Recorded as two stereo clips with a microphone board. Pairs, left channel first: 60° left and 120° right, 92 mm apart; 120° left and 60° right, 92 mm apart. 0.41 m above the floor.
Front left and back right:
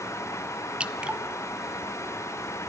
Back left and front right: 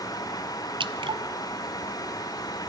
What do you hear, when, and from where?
0.8 s dripping: 40° right, 0.6 m